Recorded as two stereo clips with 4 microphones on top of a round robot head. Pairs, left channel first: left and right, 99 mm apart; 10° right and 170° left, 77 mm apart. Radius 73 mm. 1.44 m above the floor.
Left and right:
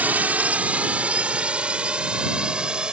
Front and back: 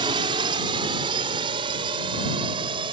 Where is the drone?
165° right; by 2.9 s 170° right.